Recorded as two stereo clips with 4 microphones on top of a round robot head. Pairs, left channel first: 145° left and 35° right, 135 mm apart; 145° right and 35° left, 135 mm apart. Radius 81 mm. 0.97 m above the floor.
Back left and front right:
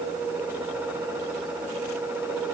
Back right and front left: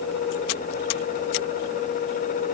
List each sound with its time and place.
Only background noise.